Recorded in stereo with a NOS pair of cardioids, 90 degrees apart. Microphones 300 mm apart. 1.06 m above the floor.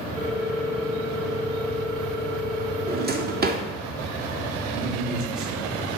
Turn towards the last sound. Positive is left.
turn(degrees=-50)